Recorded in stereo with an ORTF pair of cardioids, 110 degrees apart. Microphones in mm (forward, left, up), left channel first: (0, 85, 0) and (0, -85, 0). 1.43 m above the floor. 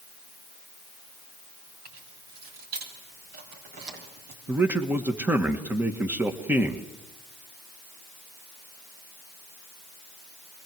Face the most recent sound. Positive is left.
turn(degrees=-10)